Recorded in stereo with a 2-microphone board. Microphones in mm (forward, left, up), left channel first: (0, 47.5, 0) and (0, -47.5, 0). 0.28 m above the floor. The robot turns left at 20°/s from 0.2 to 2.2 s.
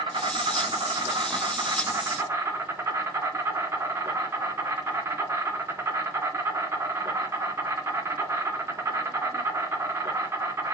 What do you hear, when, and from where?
0.0 s an insect: 105° right, 2 m; by 10.8 s 145° right, 2 m